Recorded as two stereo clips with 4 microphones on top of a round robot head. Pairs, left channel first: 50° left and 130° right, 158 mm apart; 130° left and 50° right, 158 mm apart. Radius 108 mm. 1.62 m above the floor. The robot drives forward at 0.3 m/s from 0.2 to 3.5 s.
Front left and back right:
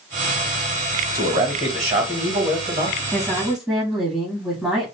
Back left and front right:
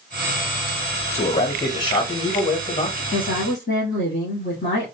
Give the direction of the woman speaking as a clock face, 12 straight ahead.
7 o'clock.